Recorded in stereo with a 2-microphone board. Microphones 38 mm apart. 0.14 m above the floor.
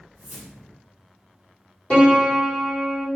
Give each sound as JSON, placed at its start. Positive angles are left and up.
{"t": 0.1, "sound": "a whoosh", "side_deg": 15, "distance_m": 1.6}
{"t": 1.9, "sound": "a piano", "side_deg": 30, "distance_m": 1.6}